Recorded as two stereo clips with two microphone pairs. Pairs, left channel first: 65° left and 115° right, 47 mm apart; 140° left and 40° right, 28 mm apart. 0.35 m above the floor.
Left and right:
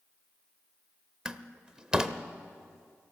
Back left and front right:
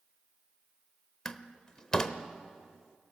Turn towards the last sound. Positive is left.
turn(degrees=-170)